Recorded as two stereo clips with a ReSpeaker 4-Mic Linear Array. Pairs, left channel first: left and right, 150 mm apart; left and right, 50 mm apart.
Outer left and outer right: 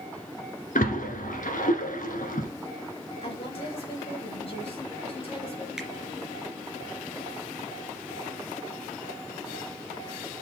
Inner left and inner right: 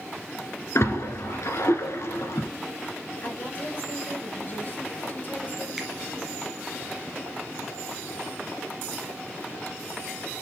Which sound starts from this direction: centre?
A finger snap, at 5.8 s.